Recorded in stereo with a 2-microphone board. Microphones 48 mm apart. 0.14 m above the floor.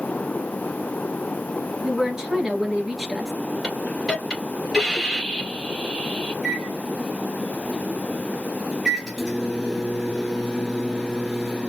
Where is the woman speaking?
10° right (ahead or behind), 2 m.